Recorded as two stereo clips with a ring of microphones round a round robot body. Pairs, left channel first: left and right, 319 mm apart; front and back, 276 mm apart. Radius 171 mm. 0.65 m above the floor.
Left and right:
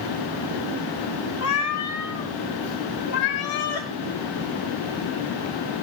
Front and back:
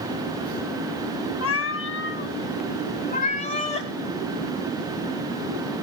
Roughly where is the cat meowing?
Ahead left.